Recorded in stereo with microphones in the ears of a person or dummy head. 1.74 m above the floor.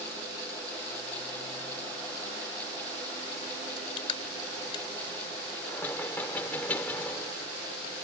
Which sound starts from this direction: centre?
Knocking, at 5.7 s.